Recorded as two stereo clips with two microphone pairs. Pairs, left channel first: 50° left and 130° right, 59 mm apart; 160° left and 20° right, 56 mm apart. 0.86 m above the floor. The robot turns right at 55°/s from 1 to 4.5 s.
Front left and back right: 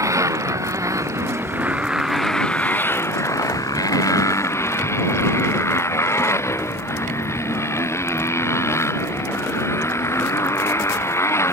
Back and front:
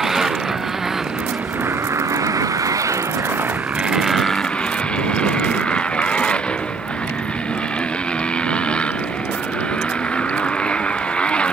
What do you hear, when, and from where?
0.0 s a motorcycle: 105° right; by 11.5 s 90° left